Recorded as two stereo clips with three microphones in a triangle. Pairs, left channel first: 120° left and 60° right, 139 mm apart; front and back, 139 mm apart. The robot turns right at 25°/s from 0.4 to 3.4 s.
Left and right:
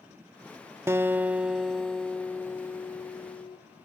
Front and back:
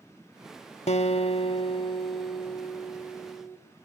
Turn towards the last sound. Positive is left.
turn(degrees=70)